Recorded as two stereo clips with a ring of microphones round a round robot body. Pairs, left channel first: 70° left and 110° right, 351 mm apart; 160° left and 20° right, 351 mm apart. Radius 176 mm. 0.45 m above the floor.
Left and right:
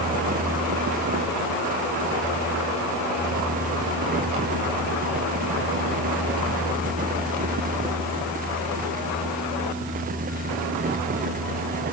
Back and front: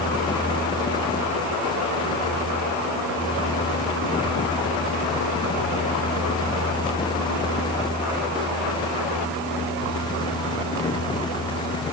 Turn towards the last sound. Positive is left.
No sound to turn to.